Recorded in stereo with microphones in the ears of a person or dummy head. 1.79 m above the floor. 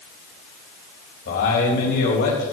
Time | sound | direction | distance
1.2 | a man speaking | 50° left (ahead or behind) | 3.5 m